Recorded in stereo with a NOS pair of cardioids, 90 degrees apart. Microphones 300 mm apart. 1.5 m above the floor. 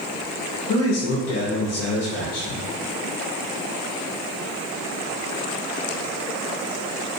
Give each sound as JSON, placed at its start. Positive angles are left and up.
{"t": 0.7, "sound": "a man speaking", "azimuth_deg": 55, "distance_m": 0.7}